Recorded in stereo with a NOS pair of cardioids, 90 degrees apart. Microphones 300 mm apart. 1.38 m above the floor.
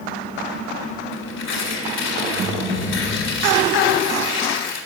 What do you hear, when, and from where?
1.1 s tearing paper: 65° left, 4 m